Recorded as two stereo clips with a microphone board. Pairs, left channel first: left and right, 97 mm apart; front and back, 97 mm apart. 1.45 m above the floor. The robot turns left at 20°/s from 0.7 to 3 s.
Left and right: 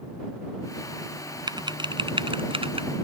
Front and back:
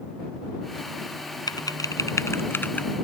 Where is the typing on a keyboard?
45° right; by 2.9 s 75° right.